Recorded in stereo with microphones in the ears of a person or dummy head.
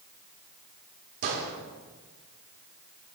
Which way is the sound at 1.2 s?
55° right (ahead or behind).